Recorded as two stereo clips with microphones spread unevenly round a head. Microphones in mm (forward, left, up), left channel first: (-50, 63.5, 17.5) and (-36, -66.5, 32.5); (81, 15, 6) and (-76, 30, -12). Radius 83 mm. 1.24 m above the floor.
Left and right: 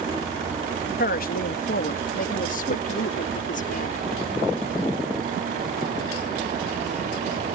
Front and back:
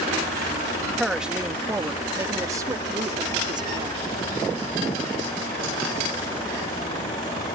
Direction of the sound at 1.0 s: 85° left.